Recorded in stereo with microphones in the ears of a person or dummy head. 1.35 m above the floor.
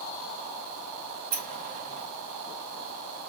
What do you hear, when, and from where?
1.3 s a sliding door: 40° right (ahead or behind), 1.2 m